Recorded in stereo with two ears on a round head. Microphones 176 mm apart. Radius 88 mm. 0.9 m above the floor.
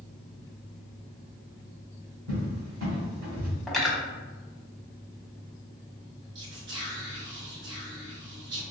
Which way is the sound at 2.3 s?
80° right.